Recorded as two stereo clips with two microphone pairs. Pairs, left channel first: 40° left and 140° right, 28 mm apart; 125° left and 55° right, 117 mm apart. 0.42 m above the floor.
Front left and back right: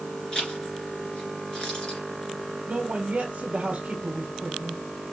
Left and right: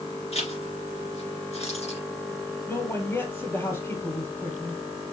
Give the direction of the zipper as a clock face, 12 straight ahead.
9 o'clock.